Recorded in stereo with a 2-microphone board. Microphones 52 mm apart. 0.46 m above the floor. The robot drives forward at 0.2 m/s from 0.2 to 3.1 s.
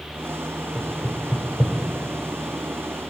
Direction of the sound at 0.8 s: 10° left (ahead or behind).